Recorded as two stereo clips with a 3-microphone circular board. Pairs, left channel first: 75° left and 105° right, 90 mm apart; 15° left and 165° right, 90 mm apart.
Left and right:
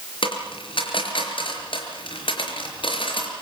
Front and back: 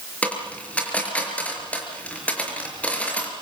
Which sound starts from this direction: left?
A dropped coin, at 0.2 s.